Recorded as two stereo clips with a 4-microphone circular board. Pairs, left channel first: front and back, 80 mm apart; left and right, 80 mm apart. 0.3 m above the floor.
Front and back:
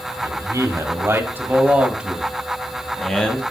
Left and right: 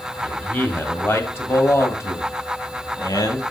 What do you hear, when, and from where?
0.2 s a man speaking: 160° left, 1.5 m; by 3.4 s 70° left, 1.5 m